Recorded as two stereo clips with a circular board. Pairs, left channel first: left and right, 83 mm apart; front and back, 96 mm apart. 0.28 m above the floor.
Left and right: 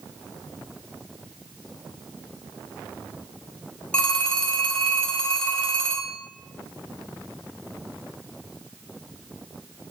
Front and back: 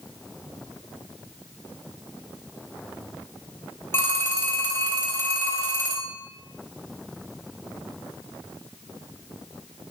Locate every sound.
3.9 s a phone ringing: 30° left, 0.7 m